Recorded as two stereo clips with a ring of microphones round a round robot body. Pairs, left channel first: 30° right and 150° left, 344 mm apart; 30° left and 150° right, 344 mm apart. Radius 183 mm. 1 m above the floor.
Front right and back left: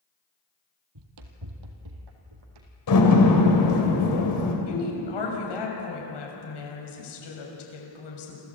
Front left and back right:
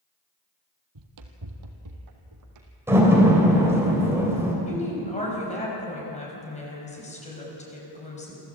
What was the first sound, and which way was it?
Running footsteps, straight behind.